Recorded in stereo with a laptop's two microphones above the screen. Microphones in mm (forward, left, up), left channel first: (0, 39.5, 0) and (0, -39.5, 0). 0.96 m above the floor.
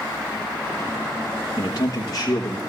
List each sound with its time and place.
1.6 s a man speaking: 50° left (ahead or behind), 1.2 m; by 2.6 s 40° left (ahead or behind), 1.7 m